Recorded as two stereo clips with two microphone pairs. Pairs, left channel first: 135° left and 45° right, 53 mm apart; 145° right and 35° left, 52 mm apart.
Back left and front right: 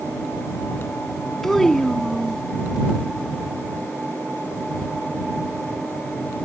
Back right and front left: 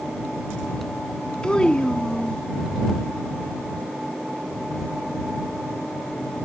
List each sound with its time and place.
1.4 s a child speaking: 165° right